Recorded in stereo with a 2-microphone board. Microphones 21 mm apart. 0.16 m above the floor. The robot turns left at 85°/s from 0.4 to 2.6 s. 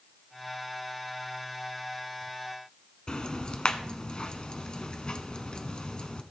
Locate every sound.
3.1 s ticking: 40° left (ahead or behind), 0.9 m